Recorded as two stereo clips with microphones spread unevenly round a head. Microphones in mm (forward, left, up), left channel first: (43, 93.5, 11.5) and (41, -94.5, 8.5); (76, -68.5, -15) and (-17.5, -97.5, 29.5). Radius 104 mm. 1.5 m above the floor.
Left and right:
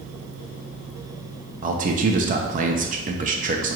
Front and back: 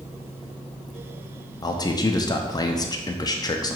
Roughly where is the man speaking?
Ahead right.